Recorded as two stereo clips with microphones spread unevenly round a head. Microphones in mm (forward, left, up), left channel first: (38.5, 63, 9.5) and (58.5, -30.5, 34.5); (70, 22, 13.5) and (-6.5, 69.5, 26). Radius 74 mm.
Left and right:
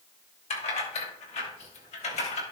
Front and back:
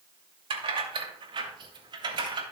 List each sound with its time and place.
0.5 s keys jangling: 125° left, 2.5 m; by 2.4 s 115° left, 3 m